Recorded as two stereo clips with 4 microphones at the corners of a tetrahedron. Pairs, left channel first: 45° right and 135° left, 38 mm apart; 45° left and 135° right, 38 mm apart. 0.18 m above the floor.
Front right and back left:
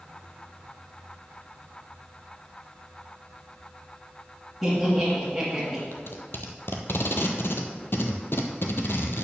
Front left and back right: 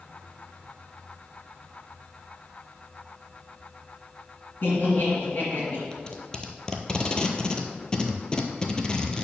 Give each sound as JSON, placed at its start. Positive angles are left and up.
{"t": 4.6, "sound": "laughter", "azimuth_deg": 40, "distance_m": 2.0}
{"t": 5.9, "sound": "tape being pulled", "azimuth_deg": -25, "distance_m": 0.9}